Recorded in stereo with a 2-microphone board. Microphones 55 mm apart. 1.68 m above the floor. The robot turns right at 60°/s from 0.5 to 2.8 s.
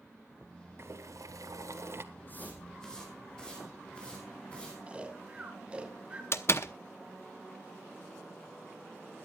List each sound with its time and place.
0.8 s boiling: 125° right, 1.5 m; by 2.0 s 50° right, 1.5 m
2.1 s footsteps: 45° left (ahead or behind), 4 m; by 4.8 s 20° left (ahead or behind), 5.5 m
4.9 s snoring: 20° right (ahead or behind), 2.5 m
6.3 s a door slam: 55° left (ahead or behind), 0.8 m